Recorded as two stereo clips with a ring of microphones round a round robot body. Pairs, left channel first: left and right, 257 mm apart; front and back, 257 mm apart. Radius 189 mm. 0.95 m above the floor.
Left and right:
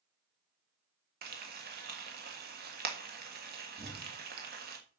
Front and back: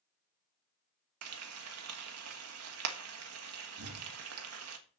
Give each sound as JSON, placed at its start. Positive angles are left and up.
{"t": 1.2, "sound": "frying", "azimuth_deg": -150, "distance_m": 1.5}
{"t": 3.8, "sound": "an explosion", "azimuth_deg": -160, "distance_m": 1.6}